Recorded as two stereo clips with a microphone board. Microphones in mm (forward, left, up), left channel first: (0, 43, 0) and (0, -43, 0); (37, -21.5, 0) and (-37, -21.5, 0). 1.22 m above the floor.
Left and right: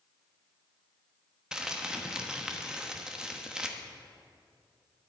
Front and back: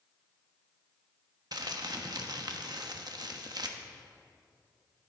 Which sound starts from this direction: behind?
Crumpling, at 1.5 s.